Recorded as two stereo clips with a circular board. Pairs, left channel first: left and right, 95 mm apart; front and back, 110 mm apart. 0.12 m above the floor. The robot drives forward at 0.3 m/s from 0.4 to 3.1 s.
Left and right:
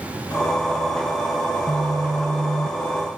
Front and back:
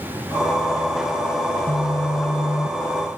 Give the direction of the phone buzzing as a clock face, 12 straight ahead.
1 o'clock.